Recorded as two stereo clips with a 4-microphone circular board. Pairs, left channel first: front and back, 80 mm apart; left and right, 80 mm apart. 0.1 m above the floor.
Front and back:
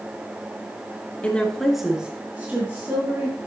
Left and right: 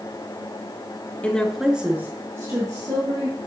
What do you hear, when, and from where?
1.2 s a woman speaking: 45° left, 1.3 m; by 3.4 s 125° right, 2.5 m